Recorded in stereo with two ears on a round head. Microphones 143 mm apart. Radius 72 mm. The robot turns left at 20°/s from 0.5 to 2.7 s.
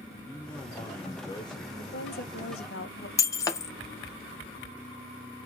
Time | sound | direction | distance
0.3 | a man speaking | 10° left (ahead or behind) | 0.6 m
1.8 | a woman speaking | 60° left (ahead or behind) | 1.1 m
3.2 | breaking glass | 20° left (ahead or behind) | 0.5 m